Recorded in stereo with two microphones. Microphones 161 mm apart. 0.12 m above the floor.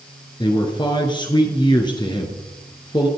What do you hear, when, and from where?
0.4 s a man speaking: 30° left (ahead or behind), 1.5 m